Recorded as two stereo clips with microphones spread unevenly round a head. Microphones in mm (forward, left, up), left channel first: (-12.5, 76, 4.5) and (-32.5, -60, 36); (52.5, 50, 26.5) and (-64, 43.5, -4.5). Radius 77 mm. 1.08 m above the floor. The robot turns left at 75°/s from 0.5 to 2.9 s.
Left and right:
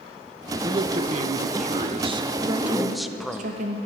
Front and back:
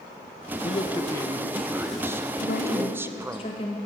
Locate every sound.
0.6 s a man speaking: 35° right, 0.5 m; by 3.4 s 155° left, 0.5 m
2.4 s a woman speaking: 20° right, 0.9 m; by 3.8 s 55° right, 0.9 m